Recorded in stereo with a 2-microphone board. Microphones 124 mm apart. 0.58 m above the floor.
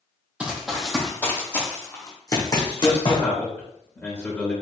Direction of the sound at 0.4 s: 10° right (ahead or behind).